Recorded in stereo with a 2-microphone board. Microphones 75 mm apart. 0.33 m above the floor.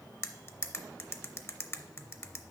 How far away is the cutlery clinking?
About 0.6 m.